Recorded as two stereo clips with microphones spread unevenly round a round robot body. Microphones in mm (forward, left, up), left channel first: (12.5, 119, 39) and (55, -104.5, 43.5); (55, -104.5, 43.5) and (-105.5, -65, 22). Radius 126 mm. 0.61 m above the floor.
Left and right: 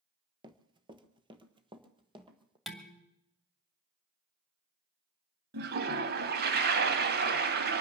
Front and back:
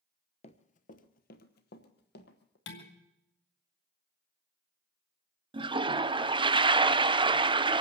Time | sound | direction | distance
0.4 | running footsteps | 20° right | 0.7 m
2.7 | dishes clattering | 10° left | 2 m
5.5 | a toilet flushing | 130° right | 0.8 m